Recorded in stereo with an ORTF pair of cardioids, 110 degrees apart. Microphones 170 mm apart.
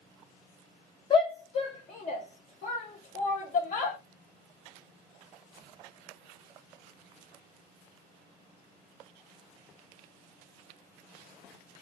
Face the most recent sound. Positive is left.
turn(degrees=55)